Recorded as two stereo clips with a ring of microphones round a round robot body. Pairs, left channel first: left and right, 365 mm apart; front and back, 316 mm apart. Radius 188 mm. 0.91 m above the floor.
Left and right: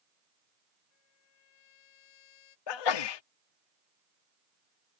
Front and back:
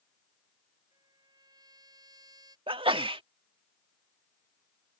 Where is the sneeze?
105° left.